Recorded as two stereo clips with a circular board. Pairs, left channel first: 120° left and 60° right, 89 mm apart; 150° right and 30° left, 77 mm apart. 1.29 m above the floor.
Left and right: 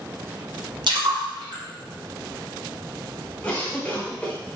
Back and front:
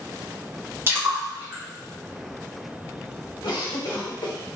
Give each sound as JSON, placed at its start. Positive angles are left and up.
{"t": 0.9, "sound": "a splash", "azimuth_deg": -30, "distance_m": 1.6}
{"t": 3.4, "sound": "a cough", "azimuth_deg": -165, "distance_m": 1.8}